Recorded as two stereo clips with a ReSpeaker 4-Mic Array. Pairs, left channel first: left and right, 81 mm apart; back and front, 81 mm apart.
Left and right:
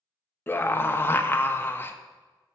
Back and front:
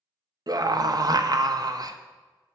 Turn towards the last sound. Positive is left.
turn(degrees=30)